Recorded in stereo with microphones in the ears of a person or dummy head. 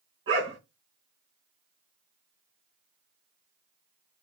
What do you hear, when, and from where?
0.3 s a dog barking: 30° right (ahead or behind), 2.5 m